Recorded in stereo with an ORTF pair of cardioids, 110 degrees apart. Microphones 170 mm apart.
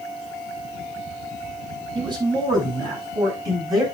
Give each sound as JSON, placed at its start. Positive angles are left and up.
{"t": 1.9, "sound": "a man speaking", "azimuth_deg": -25, "distance_m": 8.5}